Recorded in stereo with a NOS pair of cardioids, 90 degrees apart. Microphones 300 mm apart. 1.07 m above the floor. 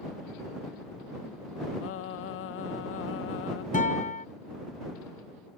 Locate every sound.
1.8 s singing: 45° left
3.7 s a guitar: 25° left